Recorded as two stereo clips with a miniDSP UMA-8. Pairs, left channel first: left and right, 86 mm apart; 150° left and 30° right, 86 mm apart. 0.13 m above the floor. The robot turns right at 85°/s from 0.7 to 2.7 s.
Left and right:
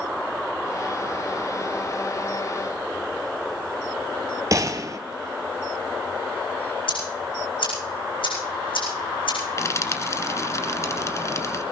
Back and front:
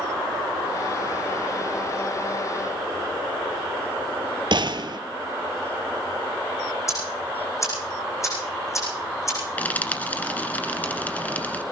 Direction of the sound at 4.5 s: 45° right.